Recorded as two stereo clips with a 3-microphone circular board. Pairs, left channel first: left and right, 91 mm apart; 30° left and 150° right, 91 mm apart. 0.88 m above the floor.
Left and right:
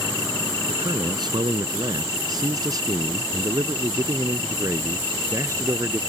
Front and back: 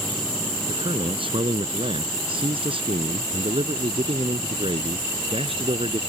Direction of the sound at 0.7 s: 130° right.